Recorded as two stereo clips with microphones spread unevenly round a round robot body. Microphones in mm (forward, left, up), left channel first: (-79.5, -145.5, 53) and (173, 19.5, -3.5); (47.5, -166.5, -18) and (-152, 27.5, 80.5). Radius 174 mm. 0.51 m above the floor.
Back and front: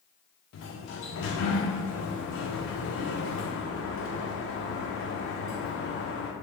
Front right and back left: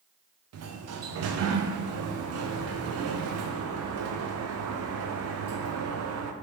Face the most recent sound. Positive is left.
turn(degrees=175)